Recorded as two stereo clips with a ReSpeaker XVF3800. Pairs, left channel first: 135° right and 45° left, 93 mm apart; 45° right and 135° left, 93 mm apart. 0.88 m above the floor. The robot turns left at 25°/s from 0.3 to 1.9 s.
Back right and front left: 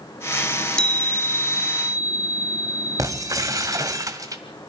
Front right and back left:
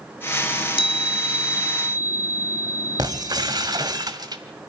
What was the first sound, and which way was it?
A chime, 50° right.